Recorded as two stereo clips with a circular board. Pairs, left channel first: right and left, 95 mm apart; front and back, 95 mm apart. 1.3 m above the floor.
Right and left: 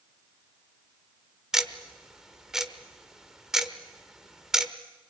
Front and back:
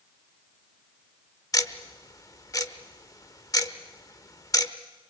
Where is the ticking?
10° left, 1.1 m.